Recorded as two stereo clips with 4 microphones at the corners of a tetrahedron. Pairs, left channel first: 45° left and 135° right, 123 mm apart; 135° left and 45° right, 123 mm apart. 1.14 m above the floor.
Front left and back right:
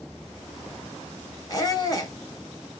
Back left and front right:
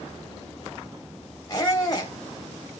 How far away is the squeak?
About 1.2 m.